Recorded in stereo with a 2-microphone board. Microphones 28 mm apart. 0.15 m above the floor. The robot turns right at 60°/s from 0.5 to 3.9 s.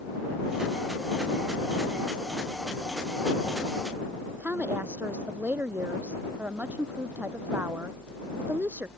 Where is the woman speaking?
70° right (ahead or behind).